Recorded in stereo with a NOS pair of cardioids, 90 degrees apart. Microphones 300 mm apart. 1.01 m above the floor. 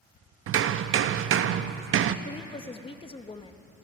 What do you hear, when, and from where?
0.5 s hammering: 45° right, 0.6 m
2.2 s a woman speaking: 20° left, 0.9 m